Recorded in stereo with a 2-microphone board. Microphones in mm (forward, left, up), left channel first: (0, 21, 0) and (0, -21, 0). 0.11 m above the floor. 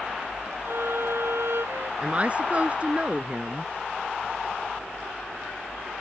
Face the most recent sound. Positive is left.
turn(degrees=-30)  # may be behind; listen again after turning